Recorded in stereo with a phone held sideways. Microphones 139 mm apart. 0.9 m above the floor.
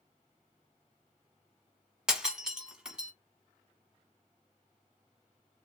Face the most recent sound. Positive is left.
turn(degrees=-5)  # may be behind; listen again after turning